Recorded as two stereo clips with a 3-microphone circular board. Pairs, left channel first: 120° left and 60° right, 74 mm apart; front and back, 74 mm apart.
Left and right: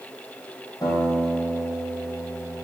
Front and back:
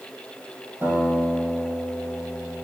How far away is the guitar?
About 3.5 m.